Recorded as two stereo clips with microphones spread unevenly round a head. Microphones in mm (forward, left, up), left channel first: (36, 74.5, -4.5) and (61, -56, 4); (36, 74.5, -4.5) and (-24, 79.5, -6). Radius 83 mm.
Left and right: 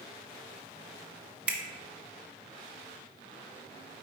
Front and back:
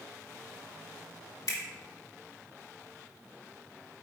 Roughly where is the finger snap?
Ahead.